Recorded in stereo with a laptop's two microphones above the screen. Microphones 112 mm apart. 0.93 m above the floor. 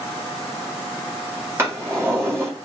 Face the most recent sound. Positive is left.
turn(degrees=-25)  # may be behind; listen again after turning